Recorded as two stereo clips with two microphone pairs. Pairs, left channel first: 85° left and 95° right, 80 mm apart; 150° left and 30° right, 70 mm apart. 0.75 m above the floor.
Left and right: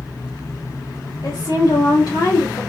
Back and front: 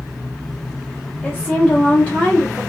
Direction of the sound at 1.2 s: 80° left.